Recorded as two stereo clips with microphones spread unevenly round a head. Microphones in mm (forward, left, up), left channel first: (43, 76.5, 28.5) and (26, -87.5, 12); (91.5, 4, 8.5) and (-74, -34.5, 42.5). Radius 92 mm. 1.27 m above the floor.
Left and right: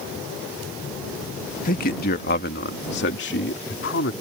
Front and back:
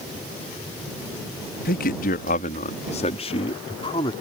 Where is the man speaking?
45° left; by 4.1 s 80° left.